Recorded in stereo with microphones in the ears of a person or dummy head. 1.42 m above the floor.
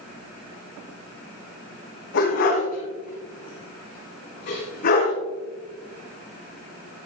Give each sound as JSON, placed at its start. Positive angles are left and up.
{"t": 2.1, "sound": "a dog barking", "side_deg": 65, "distance_m": 4.0}